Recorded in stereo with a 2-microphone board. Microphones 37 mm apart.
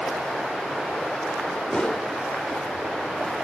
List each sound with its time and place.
1.7 s a whoosh: 25° left (ahead or behind), 0.7 m